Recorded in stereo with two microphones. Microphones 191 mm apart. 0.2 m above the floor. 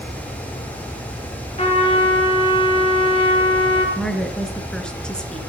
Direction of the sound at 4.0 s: 5° left (ahead or behind).